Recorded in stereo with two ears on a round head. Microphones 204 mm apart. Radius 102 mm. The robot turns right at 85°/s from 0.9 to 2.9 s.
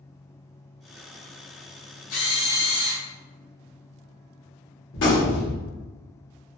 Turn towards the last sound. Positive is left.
turn(degrees=55)  # may be behind; listen again after turning